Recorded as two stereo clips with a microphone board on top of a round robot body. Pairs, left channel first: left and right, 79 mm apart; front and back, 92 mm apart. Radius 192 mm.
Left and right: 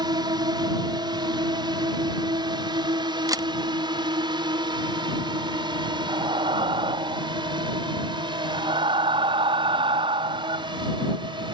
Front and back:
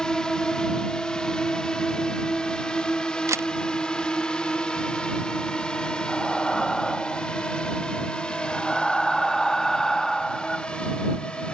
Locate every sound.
0.0 s a drone: 80° right
3.3 s a camera shutter: 125° right
6.1 s breathing: 85° right